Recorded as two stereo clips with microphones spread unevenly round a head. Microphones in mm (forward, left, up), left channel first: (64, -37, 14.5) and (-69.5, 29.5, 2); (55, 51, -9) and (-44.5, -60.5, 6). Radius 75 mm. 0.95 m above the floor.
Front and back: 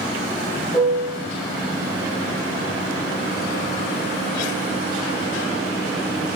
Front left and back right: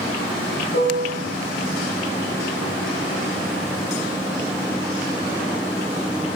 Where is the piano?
45° left, 2.5 m.